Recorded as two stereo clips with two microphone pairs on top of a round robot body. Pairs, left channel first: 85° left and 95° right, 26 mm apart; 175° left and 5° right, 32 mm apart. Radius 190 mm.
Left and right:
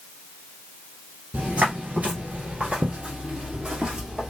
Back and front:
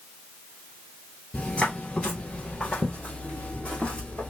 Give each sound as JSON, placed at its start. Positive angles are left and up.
{"t": 1.3, "sound": "footsteps", "azimuth_deg": -100, "distance_m": 1.2}